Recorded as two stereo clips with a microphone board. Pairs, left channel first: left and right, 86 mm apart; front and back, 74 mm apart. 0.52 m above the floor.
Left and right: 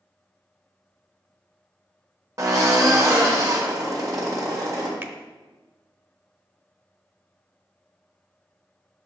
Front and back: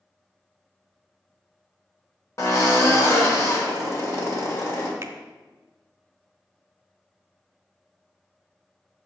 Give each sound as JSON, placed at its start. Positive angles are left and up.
{"t": 2.4, "sound": "a drill", "azimuth_deg": -45, "distance_m": 1.7}
{"t": 5.0, "sound": "a finger snap", "azimuth_deg": -145, "distance_m": 0.7}